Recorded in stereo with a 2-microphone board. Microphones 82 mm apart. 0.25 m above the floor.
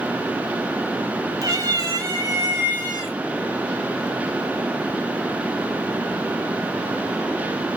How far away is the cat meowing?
About 1.0 m.